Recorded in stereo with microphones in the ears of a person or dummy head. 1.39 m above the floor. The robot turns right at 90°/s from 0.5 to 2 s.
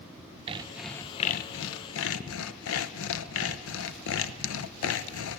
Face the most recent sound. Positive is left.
turn(degrees=105)